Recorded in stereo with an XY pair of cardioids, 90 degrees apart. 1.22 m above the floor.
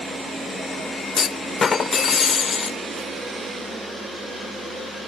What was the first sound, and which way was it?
A clunk, 50° left.